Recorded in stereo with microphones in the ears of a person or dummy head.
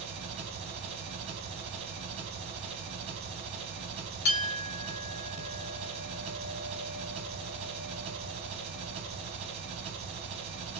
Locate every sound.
0.0 s an engine running: 35° right (ahead or behind), 1.1 m
4.2 s a clink: 50° left (ahead or behind), 1.0 m